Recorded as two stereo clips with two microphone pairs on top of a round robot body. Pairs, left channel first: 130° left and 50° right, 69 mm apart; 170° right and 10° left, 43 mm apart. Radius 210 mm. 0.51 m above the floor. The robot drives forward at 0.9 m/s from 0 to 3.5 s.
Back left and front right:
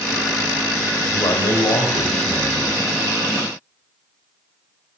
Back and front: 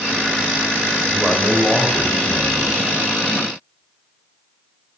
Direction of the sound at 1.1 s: 100° left.